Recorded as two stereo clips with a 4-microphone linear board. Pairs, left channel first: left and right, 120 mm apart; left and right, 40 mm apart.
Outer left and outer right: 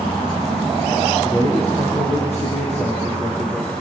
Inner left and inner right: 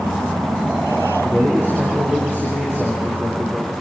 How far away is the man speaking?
About 7.5 m.